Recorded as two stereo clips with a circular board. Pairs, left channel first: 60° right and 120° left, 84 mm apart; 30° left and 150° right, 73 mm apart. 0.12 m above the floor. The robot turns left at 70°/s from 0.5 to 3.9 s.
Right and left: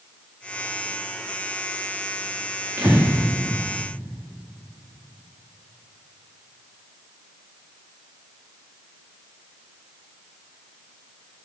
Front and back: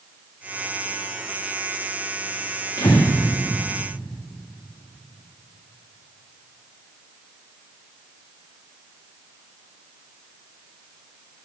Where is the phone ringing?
No phone ringing in this recording.